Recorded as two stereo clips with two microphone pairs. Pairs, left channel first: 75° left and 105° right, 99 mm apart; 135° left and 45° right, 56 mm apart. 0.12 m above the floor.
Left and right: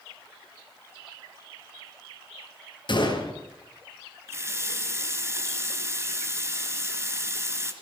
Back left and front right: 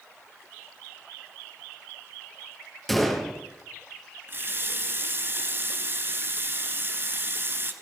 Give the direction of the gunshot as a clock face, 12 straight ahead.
10 o'clock.